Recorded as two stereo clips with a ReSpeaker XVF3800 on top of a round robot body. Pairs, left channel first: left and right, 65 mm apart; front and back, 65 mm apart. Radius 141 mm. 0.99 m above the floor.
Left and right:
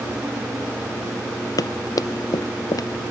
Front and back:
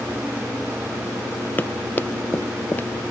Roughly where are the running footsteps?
Ahead left.